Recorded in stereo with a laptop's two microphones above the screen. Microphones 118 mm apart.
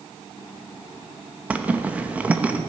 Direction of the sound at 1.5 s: 15° right (ahead or behind).